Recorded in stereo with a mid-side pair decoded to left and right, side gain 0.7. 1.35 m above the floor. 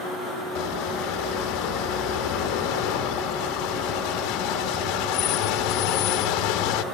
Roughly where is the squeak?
Ahead left.